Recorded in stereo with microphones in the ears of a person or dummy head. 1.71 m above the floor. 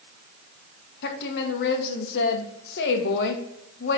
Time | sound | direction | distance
1.0 | a woman speaking | 65° left (ahead or behind) | 1.3 m